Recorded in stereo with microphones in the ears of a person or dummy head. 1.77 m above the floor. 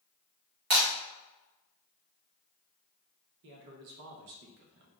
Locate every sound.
0.7 s breaking glass: 50° right (ahead or behind), 1.5 m
3.4 s a man speaking: 60° right (ahead or behind), 0.7 m